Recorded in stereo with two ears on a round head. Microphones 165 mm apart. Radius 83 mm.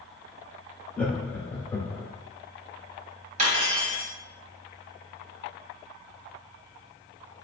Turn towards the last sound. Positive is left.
turn(degrees=-40)  # may be behind; listen again after turning